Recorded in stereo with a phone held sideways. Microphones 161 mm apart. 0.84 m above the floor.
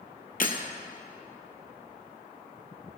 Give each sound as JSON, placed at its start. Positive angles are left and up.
{"t": 0.4, "sound": "breaking glass", "side_deg": 60, "distance_m": 1.8}